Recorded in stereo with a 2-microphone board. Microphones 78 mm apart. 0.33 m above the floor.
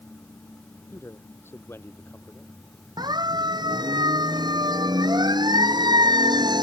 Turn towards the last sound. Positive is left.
turn(degrees=-70)  # may be behind; listen again after turning